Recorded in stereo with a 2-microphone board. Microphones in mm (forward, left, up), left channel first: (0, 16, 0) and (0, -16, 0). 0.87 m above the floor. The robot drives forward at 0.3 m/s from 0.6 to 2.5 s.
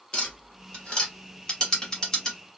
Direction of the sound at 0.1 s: 30° left (ahead or behind).